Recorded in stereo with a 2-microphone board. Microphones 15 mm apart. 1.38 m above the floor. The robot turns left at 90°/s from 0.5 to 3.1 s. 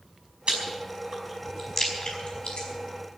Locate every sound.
0.5 s chewing: 80° right, 5 m; by 2.7 s 80° left, 5 m